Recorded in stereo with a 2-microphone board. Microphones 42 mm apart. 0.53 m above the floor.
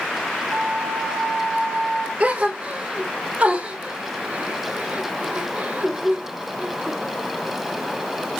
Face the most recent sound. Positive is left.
turn(degrees=-35)  # may be behind; listen again after turning